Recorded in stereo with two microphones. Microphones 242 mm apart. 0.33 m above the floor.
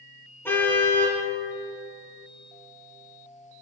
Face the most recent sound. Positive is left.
turn(degrees=10)  # may be behind; listen again after turning